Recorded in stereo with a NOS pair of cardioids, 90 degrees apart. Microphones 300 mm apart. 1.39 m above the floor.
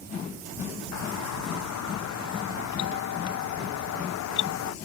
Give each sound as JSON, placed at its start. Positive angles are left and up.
{"t": 0.9, "sound": "a doorbell", "azimuth_deg": 70}